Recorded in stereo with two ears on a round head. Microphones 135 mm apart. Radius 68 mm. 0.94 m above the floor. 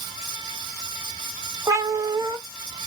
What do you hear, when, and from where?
1.7 s a cat meowing: 20° right (ahead or behind), 0.6 m